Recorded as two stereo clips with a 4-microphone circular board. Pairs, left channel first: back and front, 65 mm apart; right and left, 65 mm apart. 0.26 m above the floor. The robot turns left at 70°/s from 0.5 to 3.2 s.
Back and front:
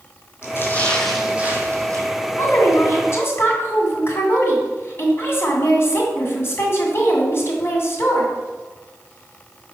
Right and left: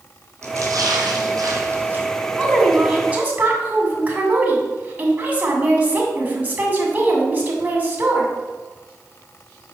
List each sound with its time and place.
0.4 s a splash: 130° left, 1.8 m; by 2.0 s 25° left, 1.8 m
2.4 s a woman speaking: 155° right, 2 m; by 8.3 s 145° left, 2 m